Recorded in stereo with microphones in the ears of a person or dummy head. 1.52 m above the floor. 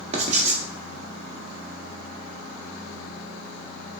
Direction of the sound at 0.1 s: 35° right (ahead or behind).